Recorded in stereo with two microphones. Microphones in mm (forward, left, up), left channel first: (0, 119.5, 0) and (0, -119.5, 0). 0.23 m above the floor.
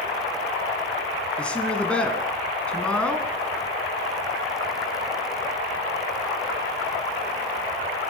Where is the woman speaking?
5° left (ahead or behind), 1.7 m.